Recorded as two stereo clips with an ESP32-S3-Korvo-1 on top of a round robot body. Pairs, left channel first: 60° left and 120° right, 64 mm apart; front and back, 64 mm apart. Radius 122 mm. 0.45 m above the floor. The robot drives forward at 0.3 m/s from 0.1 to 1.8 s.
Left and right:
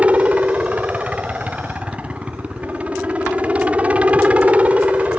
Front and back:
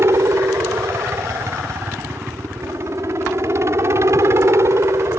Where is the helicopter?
Straight behind.